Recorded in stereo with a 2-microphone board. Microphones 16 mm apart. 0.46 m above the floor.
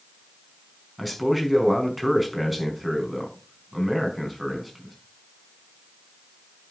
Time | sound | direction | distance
1.0 | a man speaking | 5° left (ahead or behind) | 5 m